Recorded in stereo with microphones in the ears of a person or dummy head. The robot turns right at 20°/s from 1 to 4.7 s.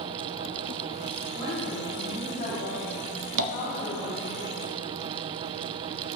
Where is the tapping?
70° right (ahead or behind), 0.8 m; by 3.5 s 65° right (ahead or behind), 0.8 m.